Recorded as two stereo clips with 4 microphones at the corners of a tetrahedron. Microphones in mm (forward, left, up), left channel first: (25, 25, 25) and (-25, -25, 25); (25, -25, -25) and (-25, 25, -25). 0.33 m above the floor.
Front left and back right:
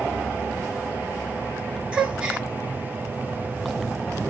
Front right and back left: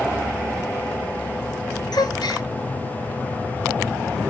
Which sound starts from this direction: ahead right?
A gasp, at 1.9 s.